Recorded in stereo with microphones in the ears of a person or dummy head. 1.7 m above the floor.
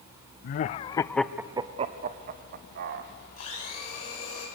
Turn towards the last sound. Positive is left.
turn(degrees=45)  # may be behind; listen again after turning